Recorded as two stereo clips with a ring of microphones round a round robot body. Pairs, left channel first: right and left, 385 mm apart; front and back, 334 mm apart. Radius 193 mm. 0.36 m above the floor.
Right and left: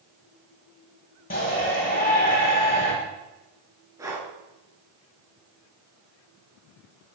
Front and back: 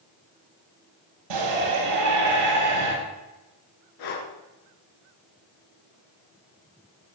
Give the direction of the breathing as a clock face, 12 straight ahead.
12 o'clock.